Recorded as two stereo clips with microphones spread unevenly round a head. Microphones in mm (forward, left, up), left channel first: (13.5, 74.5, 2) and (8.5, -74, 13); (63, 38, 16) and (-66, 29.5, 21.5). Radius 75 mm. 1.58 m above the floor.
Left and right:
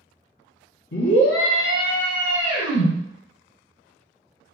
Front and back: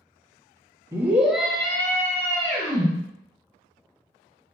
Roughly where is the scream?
Behind left.